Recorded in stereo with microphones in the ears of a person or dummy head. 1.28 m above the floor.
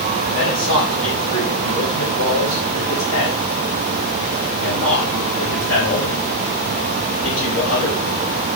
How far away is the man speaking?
About 6 m.